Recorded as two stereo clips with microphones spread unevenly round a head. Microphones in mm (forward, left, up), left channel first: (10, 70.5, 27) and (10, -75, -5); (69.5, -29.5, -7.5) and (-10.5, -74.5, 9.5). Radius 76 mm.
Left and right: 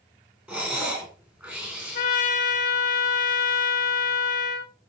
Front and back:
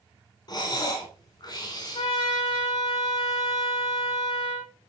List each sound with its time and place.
0.5 s breathing: 15° right, 4 m
1.9 s a trumpet: 60° left, 1.7 m